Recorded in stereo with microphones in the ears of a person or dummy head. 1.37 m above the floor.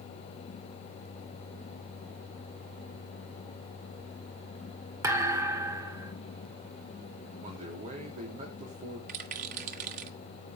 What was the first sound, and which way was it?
A thud, 15° right (ahead or behind).